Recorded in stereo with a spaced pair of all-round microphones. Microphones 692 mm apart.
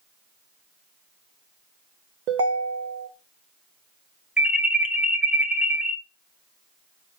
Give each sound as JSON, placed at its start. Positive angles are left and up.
{"t": 2.3, "sound": "a ringtone", "side_deg": -85, "distance_m": 0.9}
{"t": 4.4, "sound": "an alarm", "side_deg": 0, "distance_m": 0.9}